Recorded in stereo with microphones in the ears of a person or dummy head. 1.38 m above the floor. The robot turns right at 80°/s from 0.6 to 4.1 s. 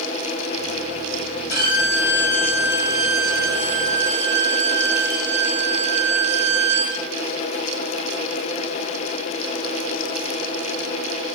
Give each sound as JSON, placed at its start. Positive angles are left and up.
{"t": 1.5, "sound": "a violin", "azimuth_deg": 110, "distance_m": 2.0}